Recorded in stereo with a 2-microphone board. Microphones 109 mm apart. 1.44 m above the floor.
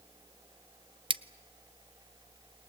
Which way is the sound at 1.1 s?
50° right (ahead or behind).